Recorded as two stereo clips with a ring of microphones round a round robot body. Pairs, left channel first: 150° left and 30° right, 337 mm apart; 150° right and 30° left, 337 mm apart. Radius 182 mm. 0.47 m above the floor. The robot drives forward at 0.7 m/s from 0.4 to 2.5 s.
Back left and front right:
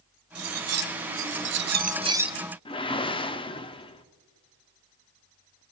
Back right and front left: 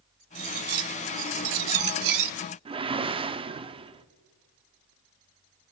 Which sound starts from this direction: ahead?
Cutlery clinking, at 0.3 s.